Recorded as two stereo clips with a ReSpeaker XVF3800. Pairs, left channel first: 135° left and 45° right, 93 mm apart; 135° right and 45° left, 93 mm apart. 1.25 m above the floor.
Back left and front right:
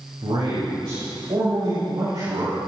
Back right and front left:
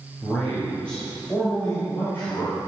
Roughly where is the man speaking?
Ahead right.